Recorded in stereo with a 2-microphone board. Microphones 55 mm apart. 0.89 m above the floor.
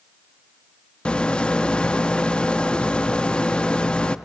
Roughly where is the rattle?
Centre.